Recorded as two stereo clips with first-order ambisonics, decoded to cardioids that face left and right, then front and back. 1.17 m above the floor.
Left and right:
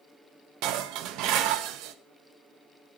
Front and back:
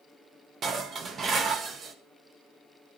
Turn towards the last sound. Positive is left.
turn(degrees=-115)